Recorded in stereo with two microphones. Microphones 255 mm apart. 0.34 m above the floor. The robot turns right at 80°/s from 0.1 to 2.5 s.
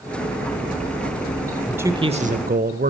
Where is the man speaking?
175° right, 1.2 m; by 2.9 s 110° right, 1.2 m.